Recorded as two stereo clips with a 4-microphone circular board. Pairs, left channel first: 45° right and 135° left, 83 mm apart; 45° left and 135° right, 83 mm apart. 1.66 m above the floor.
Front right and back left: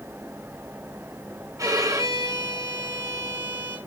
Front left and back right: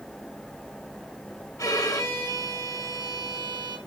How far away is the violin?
About 1.8 m.